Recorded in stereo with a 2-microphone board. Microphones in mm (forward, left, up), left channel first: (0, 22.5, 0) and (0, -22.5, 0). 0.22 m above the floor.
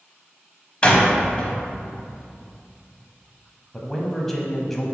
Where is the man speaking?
5° left (ahead or behind), 1.0 m.